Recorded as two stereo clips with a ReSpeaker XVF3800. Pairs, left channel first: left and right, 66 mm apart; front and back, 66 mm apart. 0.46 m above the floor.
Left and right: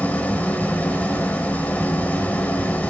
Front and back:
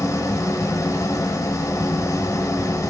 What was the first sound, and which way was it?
An engine running, 30° left.